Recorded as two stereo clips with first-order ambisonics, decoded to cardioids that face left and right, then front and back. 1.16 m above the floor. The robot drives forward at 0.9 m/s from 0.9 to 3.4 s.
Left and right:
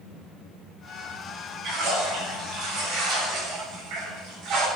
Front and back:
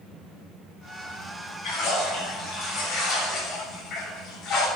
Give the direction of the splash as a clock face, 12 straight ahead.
2 o'clock.